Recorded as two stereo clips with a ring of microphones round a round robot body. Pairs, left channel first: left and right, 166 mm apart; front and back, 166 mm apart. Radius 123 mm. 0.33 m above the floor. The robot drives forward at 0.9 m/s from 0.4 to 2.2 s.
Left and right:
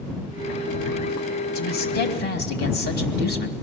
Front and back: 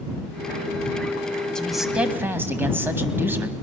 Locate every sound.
1.6 s a man speaking: 85° left, 2 m; by 3.5 s 105° left, 2 m